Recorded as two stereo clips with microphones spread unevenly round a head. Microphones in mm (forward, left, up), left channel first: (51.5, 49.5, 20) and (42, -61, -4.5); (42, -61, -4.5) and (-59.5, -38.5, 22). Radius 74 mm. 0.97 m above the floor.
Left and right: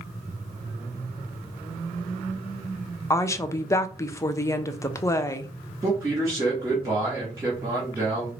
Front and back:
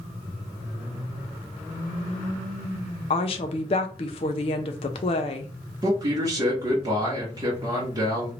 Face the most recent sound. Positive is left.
turn(degrees=-140)